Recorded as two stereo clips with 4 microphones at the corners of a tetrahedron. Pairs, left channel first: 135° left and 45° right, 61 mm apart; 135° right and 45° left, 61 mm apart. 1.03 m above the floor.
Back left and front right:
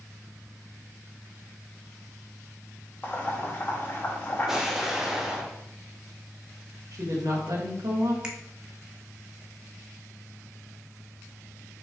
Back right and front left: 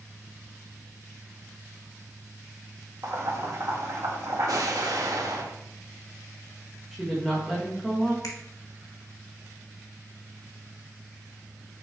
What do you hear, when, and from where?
3.0 s boiling: 75° left, 1.8 m
4.5 s an explosion: 35° left, 1.0 m
6.9 s a woman speaking: 50° right, 1.4 m
8.2 s a finger snap: 120° right, 1.3 m